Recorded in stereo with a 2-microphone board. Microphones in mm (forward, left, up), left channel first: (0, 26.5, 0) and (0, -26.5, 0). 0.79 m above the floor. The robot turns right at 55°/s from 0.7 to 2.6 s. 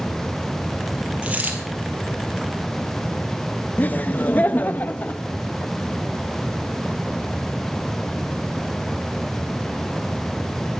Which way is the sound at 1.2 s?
20° right (ahead or behind).